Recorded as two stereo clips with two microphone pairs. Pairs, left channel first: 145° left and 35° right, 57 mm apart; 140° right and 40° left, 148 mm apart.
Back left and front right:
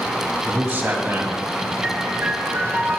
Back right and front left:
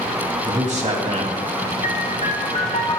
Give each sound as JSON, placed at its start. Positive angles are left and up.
{"t": 0.5, "sound": "a man speaking", "azimuth_deg": 15, "distance_m": 2.5}
{"t": 1.8, "sound": "a piano", "azimuth_deg": -100, "distance_m": 1.1}